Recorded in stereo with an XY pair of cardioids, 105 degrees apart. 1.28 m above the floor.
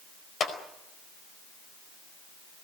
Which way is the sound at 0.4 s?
50° left.